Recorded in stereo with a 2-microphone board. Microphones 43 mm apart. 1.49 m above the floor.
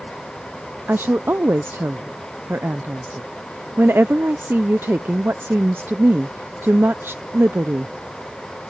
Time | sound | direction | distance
0.9 | a woman speaking | 65° right (ahead or behind) | ?